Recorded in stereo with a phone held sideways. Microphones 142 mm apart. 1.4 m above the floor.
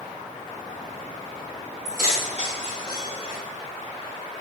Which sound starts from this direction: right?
Keys jangling, at 1.9 s.